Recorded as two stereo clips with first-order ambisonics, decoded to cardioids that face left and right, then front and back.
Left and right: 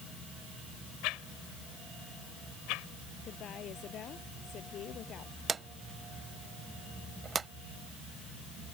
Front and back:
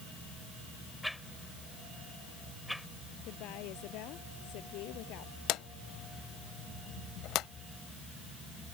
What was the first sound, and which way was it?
A whoosh, 90° left.